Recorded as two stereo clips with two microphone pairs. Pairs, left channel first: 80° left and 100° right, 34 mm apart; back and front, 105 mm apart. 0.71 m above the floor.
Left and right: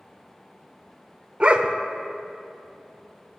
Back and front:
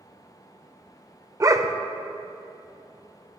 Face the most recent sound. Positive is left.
turn(degrees=-50)